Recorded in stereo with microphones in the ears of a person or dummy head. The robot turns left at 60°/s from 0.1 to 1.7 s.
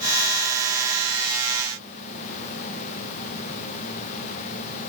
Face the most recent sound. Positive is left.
No sound to turn to.